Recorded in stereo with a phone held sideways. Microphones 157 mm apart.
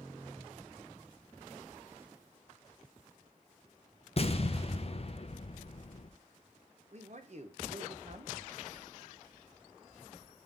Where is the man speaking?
50° right (ahead or behind), 0.8 m.